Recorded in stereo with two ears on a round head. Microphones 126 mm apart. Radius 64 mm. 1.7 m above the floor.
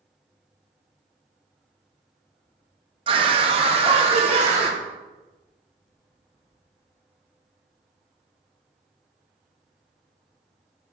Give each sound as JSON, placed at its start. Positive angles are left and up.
{"t": 3.1, "sound": "a scream", "side_deg": -35, "distance_m": 0.9}